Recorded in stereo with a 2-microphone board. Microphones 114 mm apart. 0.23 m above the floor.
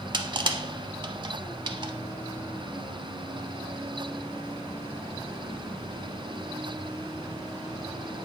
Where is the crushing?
45° right (ahead or behind), 0.7 m.